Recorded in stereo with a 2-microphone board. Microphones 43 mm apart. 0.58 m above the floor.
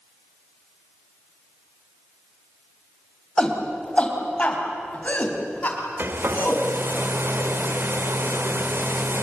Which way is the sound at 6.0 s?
60° right (ahead or behind).